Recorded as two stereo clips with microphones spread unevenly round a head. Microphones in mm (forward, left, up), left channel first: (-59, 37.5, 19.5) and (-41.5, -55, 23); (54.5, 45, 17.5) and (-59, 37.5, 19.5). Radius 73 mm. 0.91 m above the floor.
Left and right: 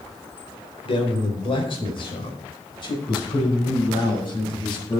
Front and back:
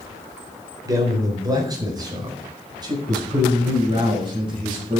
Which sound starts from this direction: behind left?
A man speaking, at 0.8 s.